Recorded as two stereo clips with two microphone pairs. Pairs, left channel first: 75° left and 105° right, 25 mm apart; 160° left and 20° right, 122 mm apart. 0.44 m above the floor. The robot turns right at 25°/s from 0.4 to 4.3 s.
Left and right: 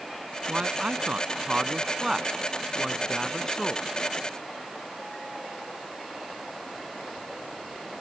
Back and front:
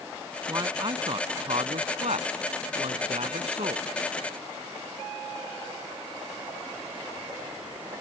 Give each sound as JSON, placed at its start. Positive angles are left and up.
{"t": 0.5, "sound": "a man speaking", "azimuth_deg": -75}